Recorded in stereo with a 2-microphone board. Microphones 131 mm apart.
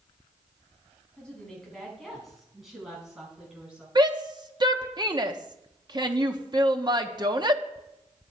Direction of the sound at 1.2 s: 10° left (ahead or behind).